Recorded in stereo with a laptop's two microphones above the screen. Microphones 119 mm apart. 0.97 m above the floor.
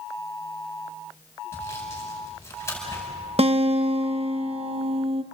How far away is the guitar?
About 0.8 m.